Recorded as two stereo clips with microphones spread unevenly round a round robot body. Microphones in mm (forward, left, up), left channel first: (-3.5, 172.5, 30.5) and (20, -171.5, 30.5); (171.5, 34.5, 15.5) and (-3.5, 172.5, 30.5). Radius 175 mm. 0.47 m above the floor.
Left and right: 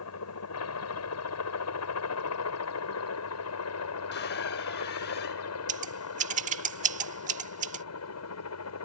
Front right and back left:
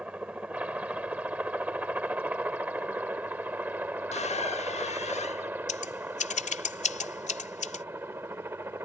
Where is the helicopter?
60° left; by 8.9 s 65° left.